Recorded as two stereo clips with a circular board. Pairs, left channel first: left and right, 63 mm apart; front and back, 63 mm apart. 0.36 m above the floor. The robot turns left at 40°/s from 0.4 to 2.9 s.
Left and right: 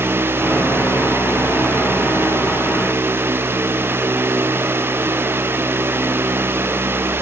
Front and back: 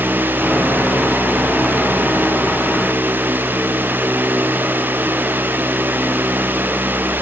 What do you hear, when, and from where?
Only background noise.